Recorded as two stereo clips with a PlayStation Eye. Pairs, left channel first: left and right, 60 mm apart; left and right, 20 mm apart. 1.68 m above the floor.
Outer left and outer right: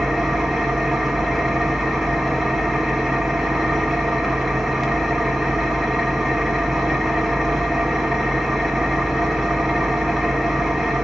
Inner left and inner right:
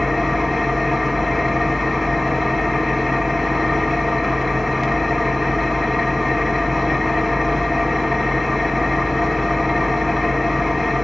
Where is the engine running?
Centre (ahead or behind), 1.0 m.